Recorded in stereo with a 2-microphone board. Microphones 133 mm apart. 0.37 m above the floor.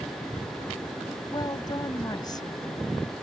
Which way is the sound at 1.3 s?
30° left (ahead or behind).